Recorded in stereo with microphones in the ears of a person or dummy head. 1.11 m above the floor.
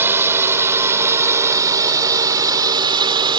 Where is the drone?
15° right (ahead or behind); by 3.4 s 30° right (ahead or behind).